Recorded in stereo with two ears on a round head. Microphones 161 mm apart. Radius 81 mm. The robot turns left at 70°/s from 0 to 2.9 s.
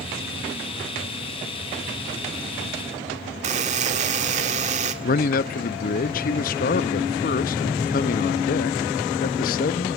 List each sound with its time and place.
3.4 s a buzzer: 40° right (ahead or behind), 1.8 m
5.0 s a man speaking: 50° left (ahead or behind), 0.7 m